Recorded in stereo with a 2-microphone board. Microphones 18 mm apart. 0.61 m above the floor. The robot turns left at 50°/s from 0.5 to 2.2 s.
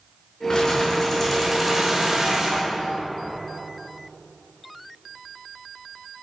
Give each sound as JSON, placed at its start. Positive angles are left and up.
{"t": 0.5, "sound": "keys jangling", "azimuth_deg": 50, "distance_m": 4.5}